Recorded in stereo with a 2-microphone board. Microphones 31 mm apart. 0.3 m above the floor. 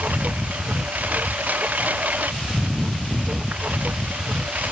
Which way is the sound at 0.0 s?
60° right (ahead or behind).